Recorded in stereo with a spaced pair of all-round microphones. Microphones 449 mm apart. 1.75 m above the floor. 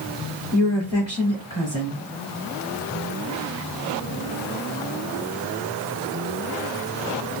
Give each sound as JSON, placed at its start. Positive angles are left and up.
{"t": 0.5, "sound": "a woman speaking", "side_deg": 60, "distance_m": 1.6}